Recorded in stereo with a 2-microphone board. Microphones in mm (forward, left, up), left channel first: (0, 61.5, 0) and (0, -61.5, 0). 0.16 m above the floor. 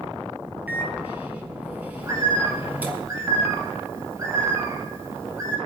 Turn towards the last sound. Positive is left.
turn(degrees=-30)  # may be behind; listen again after turning